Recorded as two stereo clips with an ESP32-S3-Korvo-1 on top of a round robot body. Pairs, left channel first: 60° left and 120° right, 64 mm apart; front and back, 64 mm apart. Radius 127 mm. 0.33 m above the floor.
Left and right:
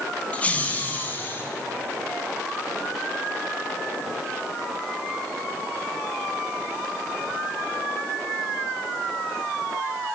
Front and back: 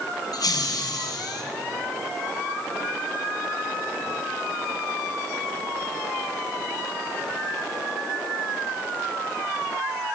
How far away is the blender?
No blender in this recording.